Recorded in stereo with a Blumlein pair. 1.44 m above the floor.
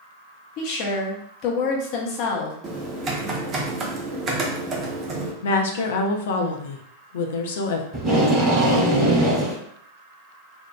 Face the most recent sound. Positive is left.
turn(degrees=-25)